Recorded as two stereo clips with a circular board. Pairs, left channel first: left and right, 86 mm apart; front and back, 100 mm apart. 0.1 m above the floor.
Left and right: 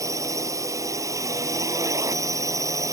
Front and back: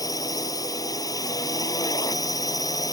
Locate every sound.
0.0 s a drone: 45° right